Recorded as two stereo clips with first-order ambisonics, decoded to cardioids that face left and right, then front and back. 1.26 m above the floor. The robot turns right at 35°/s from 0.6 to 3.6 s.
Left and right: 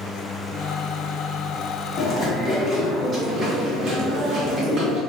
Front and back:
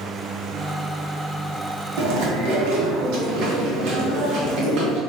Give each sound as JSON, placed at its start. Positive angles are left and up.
{"t": 2.0, "sound": "chewing", "azimuth_deg": 155, "distance_m": 0.8}